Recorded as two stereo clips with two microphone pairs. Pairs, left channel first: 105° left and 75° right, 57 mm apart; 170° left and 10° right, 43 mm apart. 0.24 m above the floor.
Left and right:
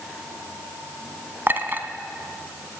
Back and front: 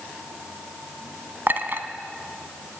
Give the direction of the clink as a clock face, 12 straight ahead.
1 o'clock.